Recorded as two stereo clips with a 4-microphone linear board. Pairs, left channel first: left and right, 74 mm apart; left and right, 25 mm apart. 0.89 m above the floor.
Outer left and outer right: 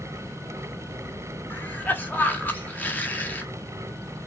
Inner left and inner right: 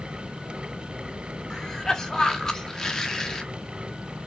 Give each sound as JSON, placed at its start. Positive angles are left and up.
{"t": 1.5, "sound": "a cough", "side_deg": 25, "distance_m": 0.9}